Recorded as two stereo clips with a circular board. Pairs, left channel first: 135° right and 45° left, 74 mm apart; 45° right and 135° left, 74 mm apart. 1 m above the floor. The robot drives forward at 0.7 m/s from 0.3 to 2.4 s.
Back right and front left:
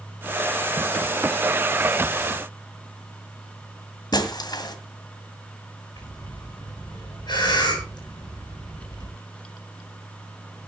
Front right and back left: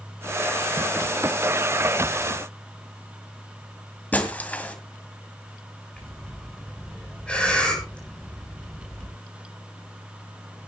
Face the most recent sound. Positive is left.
turn(degrees=-120)